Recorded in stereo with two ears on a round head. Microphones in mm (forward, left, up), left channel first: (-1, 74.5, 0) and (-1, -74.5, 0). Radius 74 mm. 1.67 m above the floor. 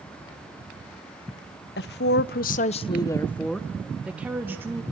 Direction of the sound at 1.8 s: 70° left (ahead or behind).